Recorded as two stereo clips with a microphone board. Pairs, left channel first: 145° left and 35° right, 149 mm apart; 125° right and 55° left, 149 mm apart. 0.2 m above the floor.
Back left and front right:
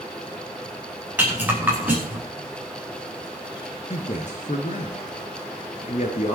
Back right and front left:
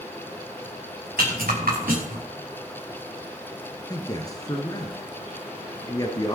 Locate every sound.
1.2 s a rattle: 45° left, 6.5 m
3.9 s a man speaking: 175° left, 2.5 m